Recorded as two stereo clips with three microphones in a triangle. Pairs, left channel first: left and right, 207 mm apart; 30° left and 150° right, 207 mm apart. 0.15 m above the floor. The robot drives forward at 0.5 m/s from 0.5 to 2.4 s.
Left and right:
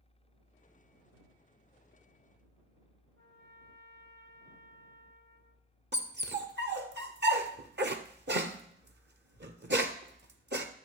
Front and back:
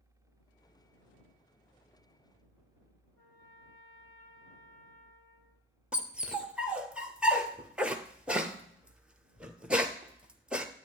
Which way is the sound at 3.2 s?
130° right.